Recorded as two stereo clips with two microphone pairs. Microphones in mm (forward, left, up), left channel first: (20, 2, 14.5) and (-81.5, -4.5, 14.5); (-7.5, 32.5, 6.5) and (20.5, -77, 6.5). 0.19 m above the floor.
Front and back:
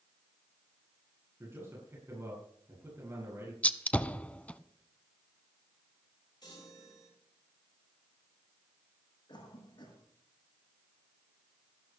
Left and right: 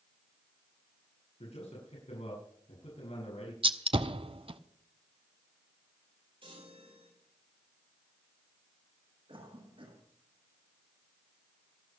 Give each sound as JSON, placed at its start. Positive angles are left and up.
{"t": 1.4, "sound": "a man speaking", "azimuth_deg": 120, "distance_m": 7.0}
{"t": 3.6, "sound": "a gunshot", "azimuth_deg": -75, "distance_m": 0.7}
{"t": 6.4, "sound": "a chime", "azimuth_deg": -40, "distance_m": 7.5}
{"t": 9.3, "sound": "a cough", "azimuth_deg": -35, "distance_m": 8.0}